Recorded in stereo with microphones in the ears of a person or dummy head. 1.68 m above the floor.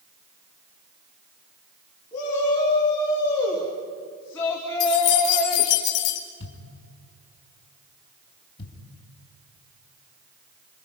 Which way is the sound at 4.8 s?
60° left (ahead or behind).